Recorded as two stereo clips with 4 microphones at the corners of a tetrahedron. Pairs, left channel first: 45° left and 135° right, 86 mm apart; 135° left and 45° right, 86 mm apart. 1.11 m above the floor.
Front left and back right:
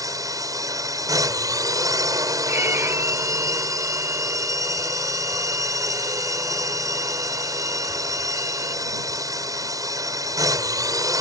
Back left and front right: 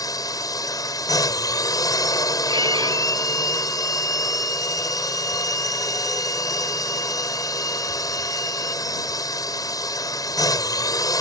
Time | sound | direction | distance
0.0 | a drone | straight behind | ?
2.5 | a violin | 70° right | ?